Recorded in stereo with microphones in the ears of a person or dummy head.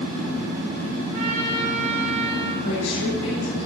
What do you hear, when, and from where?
1.1 s a trumpet: 55° right (ahead or behind), 8 m
2.6 s a woman speaking: 75° left (ahead or behind), 9 m